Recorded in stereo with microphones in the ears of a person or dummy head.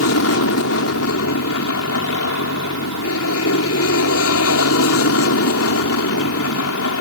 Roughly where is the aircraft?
Left.